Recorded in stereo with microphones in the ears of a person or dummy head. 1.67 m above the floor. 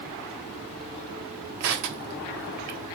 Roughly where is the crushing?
Right.